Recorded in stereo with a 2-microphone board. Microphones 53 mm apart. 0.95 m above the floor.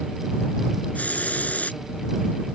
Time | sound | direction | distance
0.9 | a hiss | 25° left (ahead or behind) | ?